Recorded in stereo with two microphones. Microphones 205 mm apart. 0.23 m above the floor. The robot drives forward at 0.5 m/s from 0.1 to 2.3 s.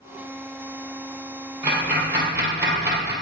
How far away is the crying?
No crying in this recording.